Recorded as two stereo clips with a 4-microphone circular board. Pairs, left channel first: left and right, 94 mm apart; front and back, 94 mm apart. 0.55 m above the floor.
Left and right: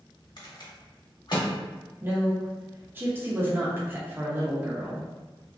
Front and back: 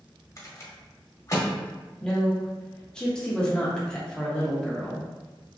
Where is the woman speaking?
70° right, 0.7 m.